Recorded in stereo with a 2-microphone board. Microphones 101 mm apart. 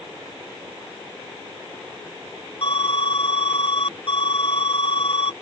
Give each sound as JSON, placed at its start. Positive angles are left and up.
{"t": 2.6, "sound": "an alarm", "side_deg": 60}